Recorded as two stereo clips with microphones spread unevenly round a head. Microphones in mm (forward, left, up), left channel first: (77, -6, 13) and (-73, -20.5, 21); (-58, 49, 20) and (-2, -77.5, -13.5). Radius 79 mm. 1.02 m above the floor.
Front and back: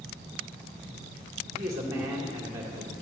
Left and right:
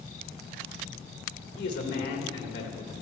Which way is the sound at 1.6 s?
115° left.